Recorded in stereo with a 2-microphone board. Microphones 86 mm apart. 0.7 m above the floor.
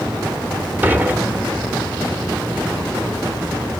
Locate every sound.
0.8 s dishes clattering: 20° right (ahead or behind), 1.3 m